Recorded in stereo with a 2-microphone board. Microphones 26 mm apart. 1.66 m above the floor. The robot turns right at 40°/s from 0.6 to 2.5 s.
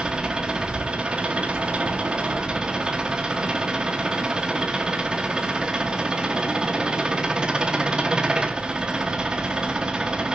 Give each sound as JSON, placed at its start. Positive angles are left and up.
{"t": 0.0, "sound": "an engine running", "azimuth_deg": -130, "distance_m": 1.1}